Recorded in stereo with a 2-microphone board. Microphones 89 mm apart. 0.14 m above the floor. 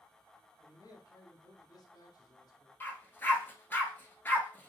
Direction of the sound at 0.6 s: 45° left (ahead or behind).